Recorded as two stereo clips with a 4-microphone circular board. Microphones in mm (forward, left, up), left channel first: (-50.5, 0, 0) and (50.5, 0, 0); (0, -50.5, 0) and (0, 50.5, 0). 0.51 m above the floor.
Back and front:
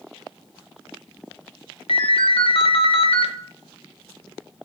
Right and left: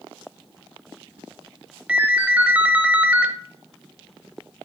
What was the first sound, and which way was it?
A ringtone, 165° left.